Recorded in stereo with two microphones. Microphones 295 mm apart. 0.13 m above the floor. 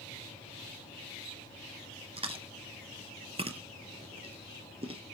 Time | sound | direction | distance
2.2 | chewing | 20° right (ahead or behind) | 0.7 m